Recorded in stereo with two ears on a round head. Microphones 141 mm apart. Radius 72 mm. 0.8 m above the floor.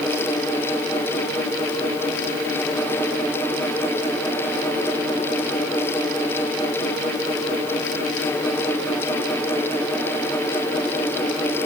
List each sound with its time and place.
Only background noise.